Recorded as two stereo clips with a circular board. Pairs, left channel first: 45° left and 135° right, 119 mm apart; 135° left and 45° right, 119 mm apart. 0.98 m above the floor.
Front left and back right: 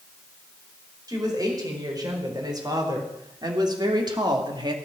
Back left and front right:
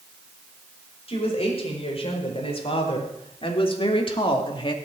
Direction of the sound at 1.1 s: 170° left.